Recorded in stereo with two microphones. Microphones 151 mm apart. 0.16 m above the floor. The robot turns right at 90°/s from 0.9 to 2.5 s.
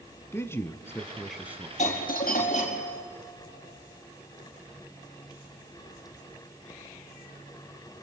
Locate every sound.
0.3 s a man speaking: 145° left, 1.2 m; by 1.7 s 140° right, 1.2 m
1.8 s a doorbell: 55° left, 4.5 m; by 3.0 s 120° left, 4.5 m